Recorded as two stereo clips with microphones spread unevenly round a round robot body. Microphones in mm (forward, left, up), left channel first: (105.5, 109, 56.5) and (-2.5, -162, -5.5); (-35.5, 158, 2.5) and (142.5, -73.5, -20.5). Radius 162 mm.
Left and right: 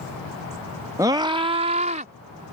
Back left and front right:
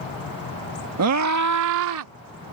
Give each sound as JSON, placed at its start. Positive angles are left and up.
{"t": 1.0, "sound": "a scream", "azimuth_deg": -45}